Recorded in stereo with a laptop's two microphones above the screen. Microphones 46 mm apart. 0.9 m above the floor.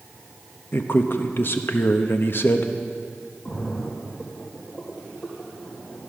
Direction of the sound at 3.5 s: 35° left (ahead or behind).